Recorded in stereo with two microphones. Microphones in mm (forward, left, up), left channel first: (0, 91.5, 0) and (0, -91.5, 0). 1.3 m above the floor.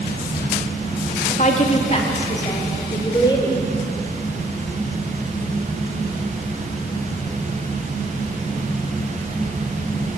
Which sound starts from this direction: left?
A woman speaking, at 1.3 s.